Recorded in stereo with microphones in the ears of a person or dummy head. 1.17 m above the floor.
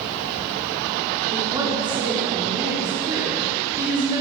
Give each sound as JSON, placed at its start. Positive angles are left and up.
{"t": 1.3, "sound": "a woman speaking", "side_deg": -20, "distance_m": 3.5}